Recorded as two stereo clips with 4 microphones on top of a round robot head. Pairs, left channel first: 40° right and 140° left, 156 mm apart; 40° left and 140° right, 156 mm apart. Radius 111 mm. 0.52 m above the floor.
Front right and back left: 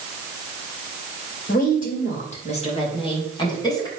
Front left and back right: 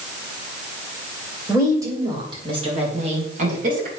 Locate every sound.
1.5 s a woman speaking: 65° right, 3 m; by 3.9 s 105° right, 3.5 m